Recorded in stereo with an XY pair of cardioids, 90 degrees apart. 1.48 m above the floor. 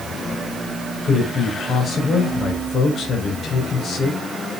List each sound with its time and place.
1.0 s a man speaking: 55° left, 6.5 m